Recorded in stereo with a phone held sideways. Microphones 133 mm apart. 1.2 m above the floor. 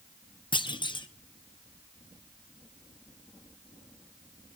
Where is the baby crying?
I don't hear a baby crying.